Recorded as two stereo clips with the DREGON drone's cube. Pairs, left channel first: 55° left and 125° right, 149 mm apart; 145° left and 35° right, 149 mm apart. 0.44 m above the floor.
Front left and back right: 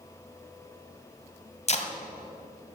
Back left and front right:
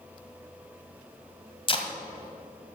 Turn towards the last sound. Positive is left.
turn(degrees=95)